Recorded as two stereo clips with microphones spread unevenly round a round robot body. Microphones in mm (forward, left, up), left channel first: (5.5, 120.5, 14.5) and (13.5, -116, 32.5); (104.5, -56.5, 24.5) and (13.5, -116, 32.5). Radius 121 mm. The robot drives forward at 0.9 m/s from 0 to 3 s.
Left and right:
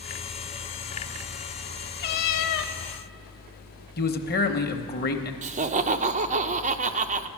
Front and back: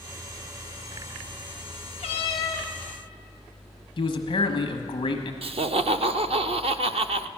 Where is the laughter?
145° right, 0.5 m.